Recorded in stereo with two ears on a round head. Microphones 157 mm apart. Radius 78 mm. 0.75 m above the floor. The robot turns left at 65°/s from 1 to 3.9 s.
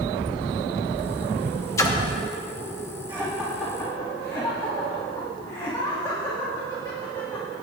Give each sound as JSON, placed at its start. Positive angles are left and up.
{"t": 1.8, "sound": "a splash", "side_deg": 15, "distance_m": 1.0}
{"t": 3.1, "sound": "laughter", "side_deg": -25, "distance_m": 1.6}